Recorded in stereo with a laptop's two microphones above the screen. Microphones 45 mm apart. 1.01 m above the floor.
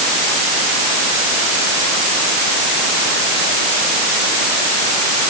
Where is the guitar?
I don't hear a guitar.